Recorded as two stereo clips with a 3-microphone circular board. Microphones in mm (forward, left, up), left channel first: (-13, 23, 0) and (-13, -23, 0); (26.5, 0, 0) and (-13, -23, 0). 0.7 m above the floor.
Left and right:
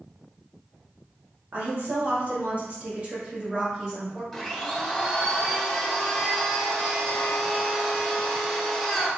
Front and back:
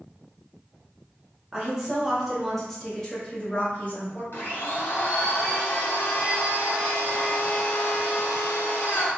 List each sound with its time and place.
1.5 s a woman speaking: 85° right, 1.4 m; by 4.2 s 10° right, 1.5 m
4.3 s a blender: 5° left, 1.0 m